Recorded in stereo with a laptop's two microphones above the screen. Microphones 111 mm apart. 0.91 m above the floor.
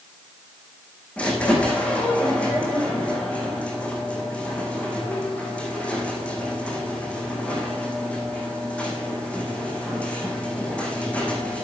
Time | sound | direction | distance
1.2 | a squeak | 10° left (ahead or behind) | 4.5 m